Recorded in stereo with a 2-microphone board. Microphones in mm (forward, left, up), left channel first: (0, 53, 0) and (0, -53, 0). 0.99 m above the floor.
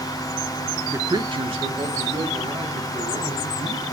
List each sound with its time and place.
0.9 s a man speaking: 15° right (ahead or behind), 0.5 m; by 3.8 s 85° right, 3.5 m